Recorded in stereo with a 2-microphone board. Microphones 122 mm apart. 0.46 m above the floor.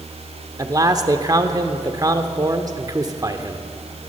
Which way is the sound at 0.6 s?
30° right (ahead or behind).